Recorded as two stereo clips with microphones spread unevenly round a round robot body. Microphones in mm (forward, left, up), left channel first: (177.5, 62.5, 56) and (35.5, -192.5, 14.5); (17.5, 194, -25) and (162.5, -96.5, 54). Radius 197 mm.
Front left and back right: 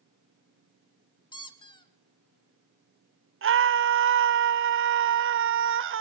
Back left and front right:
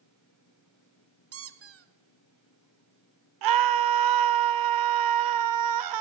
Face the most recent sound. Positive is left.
turn(degrees=-95)